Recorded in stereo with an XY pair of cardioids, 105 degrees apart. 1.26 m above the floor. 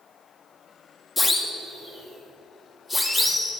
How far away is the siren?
About 3 m.